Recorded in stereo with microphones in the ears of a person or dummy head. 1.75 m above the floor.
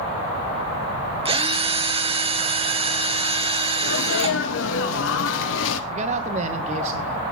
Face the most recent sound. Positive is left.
turn(degrees=-40)  # may be behind; listen again after turning